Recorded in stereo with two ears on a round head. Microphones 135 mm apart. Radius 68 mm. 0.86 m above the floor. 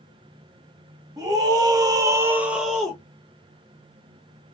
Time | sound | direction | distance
1.2 | a scream | 25° right (ahead or behind) | 1.7 m